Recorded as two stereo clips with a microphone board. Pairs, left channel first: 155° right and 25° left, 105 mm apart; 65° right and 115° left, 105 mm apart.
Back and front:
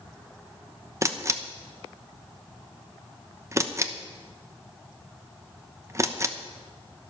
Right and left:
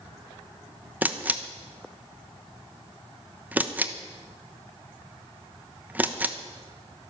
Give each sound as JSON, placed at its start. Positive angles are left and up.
{"t": 1.0, "sound": "a camera shutter", "azimuth_deg": 55, "distance_m": 1.0}